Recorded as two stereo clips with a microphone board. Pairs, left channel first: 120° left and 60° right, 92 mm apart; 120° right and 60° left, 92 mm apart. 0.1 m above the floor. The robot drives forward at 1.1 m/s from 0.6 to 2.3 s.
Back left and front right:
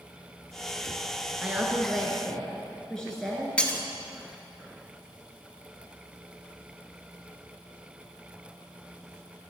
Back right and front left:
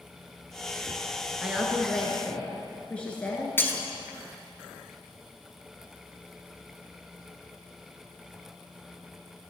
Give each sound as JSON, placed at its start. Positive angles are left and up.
{"t": 1.4, "sound": "a woman speaking", "azimuth_deg": -5, "distance_m": 1.3}
{"t": 3.6, "sound": "breaking glass", "azimuth_deg": -170, "distance_m": 1.0}